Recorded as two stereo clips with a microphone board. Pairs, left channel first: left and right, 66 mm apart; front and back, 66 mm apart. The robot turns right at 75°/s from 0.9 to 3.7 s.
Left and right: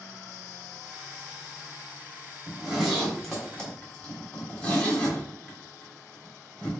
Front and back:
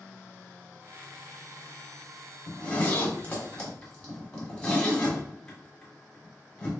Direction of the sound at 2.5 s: 40° right.